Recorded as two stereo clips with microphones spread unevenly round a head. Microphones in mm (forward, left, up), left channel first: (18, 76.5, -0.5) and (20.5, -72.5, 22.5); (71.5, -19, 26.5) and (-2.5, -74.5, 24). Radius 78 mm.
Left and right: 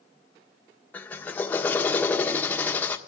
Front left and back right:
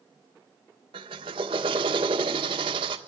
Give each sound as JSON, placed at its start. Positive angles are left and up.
{"t": 0.9, "sound": "a drill", "azimuth_deg": 170, "distance_m": 1.4}